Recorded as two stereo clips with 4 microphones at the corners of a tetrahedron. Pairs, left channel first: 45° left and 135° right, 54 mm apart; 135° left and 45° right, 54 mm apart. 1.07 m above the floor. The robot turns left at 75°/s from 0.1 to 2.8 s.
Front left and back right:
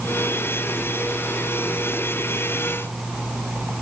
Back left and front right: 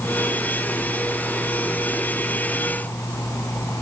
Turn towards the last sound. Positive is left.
No sound to turn to.